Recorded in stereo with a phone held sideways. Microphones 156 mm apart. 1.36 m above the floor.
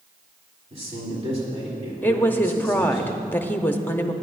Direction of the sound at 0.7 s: 40° right (ahead or behind).